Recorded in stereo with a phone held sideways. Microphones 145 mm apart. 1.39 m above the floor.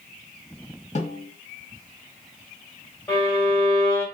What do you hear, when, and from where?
0.9 s a snare drum: 50° left (ahead or behind), 1.7 m
3.1 s a violin: 20° left (ahead or behind), 1.5 m